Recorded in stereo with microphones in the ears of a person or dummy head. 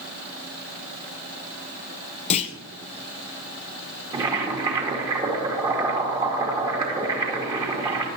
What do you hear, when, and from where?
2.3 s a clunk: 40° left (ahead or behind), 0.7 m
4.1 s boiling: 20° right (ahead or behind), 2 m